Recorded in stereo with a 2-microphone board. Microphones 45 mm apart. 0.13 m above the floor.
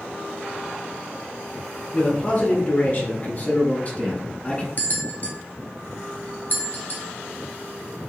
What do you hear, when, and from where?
1.9 s a man speaking: 40° left (ahead or behind), 2 m; by 4.7 s 25° left (ahead or behind), 1.2 m
4.8 s a bell: 40° left (ahead or behind), 1.1 m